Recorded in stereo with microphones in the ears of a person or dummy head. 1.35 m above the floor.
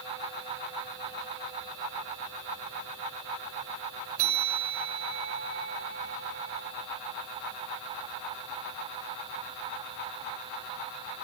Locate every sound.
4.2 s a bell: 75° right (ahead or behind), 3.5 m